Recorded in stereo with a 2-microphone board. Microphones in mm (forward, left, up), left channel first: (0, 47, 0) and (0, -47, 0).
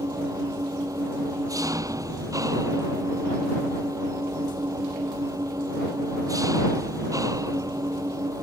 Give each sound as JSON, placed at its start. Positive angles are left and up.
{"t": 0.0, "sound": "an engine running", "side_deg": -40}